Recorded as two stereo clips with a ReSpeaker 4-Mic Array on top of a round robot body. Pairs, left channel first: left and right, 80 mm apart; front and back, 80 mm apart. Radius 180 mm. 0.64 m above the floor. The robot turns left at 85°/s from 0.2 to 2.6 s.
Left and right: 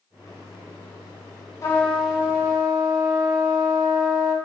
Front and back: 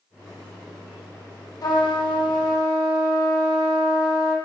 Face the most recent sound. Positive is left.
turn(degrees=-45)